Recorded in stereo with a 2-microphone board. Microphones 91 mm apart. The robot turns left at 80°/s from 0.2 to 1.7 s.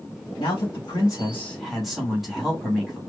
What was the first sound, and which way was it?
A man speaking, 105° left.